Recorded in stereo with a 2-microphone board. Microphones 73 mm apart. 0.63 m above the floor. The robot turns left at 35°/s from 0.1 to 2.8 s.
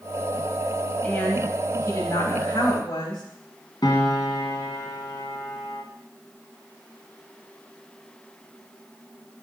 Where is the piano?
80° left, 1.7 m.